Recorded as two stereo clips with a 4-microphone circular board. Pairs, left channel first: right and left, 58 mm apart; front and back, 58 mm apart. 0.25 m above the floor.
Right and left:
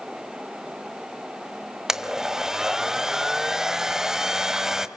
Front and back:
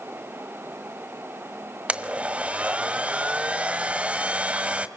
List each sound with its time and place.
1.9 s a blender: 160° left, 1.3 m